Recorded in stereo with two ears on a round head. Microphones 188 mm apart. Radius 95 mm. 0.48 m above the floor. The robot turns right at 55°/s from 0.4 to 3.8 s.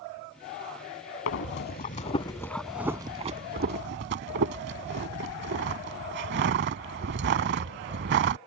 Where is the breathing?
65° left (ahead or behind); by 8.4 s 55° right (ahead or behind).